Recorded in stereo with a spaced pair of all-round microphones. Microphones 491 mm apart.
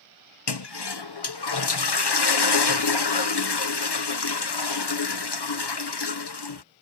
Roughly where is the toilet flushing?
Left.